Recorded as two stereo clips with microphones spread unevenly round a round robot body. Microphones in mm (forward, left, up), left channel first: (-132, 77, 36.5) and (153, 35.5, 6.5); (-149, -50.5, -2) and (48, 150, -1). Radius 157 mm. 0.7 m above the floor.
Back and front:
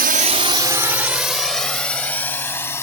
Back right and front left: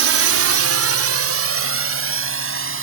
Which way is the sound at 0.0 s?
30° left.